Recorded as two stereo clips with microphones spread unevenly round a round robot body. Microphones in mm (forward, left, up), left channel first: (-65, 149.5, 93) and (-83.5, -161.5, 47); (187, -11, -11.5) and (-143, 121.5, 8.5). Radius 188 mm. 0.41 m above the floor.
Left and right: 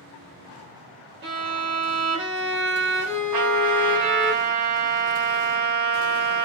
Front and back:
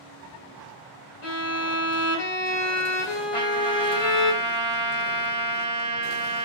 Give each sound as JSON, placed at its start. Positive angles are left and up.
{"t": 1.2, "sound": "a violin", "azimuth_deg": -65, "distance_m": 1.2}
{"t": 3.3, "sound": "a trumpet", "azimuth_deg": -100, "distance_m": 1.0}